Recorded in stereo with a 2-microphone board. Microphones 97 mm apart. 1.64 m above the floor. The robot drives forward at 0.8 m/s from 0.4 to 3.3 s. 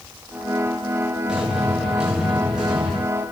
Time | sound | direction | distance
1.3 | an explosion | 5° right (ahead or behind) | 6 m